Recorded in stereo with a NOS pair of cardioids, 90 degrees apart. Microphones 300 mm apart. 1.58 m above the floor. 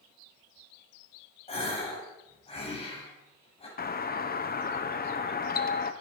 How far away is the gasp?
About 6.5 m.